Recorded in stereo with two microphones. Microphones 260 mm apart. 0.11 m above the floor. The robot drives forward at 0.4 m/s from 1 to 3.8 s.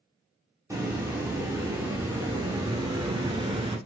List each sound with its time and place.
0.7 s a hiss: 10° right (ahead or behind), 1.7 m; by 3.8 s 20° right (ahead or behind), 0.9 m